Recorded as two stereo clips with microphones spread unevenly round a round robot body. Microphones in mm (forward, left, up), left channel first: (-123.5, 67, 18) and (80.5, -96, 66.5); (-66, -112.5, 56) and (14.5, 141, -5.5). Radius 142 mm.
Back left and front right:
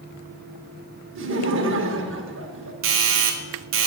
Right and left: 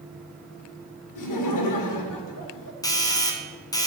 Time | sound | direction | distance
1.1 | laughter | 85° right | 1.8 m
2.8 | a doorbell | 20° right | 1.5 m